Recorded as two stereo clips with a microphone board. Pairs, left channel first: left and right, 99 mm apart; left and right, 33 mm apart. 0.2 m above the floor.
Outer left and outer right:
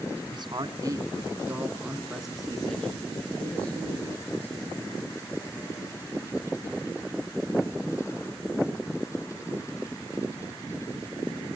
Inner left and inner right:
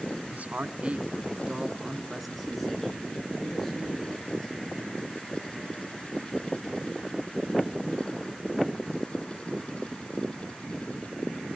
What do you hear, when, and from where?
0.3 s a man speaking: 45° right (ahead or behind), 2 m; by 5.2 s 20° left (ahead or behind), 6 m